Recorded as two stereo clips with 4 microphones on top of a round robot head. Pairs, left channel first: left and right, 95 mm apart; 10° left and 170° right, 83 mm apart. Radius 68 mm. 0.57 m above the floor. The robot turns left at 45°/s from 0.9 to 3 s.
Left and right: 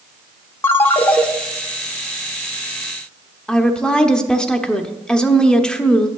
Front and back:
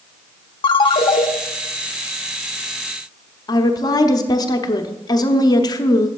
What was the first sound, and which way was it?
A ringtone, 25° left.